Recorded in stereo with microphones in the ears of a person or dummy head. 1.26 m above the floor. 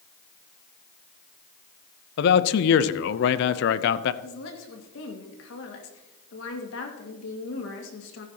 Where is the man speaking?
65° left (ahead or behind), 0.7 m.